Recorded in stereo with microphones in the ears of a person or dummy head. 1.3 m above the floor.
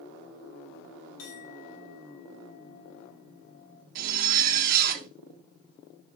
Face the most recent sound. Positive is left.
turn(degrees=-50)  # may be behind; listen again after turning